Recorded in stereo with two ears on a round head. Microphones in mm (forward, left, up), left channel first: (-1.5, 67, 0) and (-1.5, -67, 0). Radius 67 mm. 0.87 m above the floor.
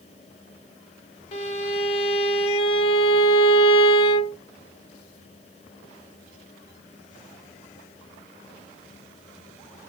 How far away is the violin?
About 0.9 m.